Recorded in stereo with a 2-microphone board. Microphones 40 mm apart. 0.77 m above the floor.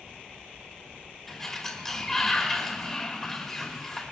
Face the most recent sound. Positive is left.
turn(degrees=15)  # may be behind; listen again after turning